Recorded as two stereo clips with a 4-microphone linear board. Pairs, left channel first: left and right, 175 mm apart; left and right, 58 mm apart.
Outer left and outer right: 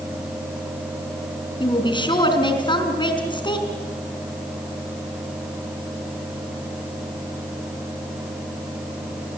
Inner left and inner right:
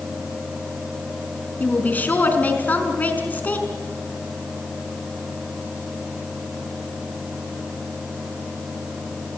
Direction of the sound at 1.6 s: 25° left (ahead or behind).